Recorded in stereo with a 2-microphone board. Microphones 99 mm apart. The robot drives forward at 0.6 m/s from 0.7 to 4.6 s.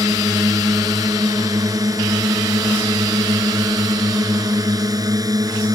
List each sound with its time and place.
0.0 s a drone: 35° right (ahead or behind)